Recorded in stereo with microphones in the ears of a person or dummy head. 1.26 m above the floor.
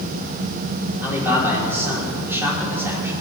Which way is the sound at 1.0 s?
15° right (ahead or behind).